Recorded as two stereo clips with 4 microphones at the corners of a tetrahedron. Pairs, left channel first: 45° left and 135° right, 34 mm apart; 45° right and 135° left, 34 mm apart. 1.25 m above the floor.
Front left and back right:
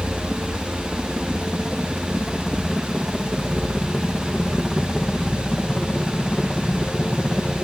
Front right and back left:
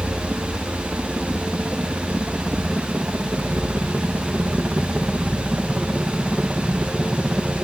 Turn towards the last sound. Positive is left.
turn(degrees=85)